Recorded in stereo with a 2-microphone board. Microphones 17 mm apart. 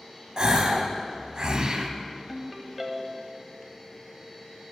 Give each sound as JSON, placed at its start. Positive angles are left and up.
{"t": 0.4, "sound": "a gasp", "side_deg": -55, "distance_m": 0.8}
{"t": 2.3, "sound": "a ringtone", "side_deg": -15, "distance_m": 1.0}